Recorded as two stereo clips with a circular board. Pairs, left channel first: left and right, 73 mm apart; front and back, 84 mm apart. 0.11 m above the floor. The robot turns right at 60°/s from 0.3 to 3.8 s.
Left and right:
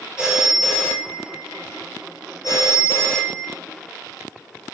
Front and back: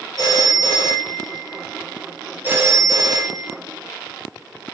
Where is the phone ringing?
15° right, 1.2 m; by 3.6 s straight behind, 1.2 m.